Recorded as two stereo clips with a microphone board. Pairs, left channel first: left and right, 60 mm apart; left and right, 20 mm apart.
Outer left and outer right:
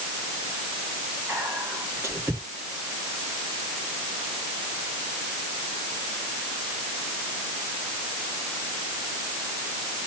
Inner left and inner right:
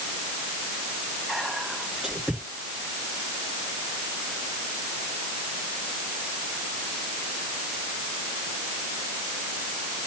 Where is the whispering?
30° right (ahead or behind), 1.6 m.